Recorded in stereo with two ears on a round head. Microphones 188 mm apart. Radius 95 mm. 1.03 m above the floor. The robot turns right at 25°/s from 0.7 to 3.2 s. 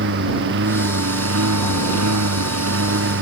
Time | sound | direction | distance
0.0 | a lawn mower | 120° right | ?